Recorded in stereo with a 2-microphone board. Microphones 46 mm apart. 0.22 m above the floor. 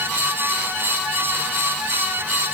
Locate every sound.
Only background noise.